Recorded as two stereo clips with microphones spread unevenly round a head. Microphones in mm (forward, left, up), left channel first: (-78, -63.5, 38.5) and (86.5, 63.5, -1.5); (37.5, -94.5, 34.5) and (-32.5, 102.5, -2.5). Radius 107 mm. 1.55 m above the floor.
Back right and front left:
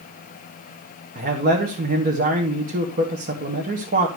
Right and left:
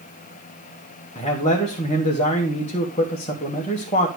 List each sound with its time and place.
1.1 s a man speaking: 5° right, 2.0 m